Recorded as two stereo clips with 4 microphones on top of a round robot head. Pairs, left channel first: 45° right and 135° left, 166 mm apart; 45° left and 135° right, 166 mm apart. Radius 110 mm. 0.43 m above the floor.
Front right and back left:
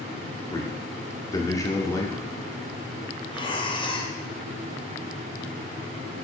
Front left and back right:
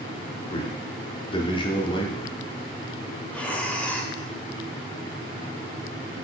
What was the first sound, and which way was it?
A man speaking, 10° left.